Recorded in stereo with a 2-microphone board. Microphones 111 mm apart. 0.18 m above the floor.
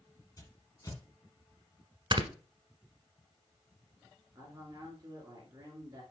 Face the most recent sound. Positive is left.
turn(degrees=-30)  # may be behind; listen again after turning